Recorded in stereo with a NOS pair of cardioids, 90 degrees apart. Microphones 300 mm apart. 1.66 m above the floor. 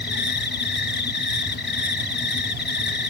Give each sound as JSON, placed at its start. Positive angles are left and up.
{"t": 0.0, "sound": "an insect", "azimuth_deg": 35}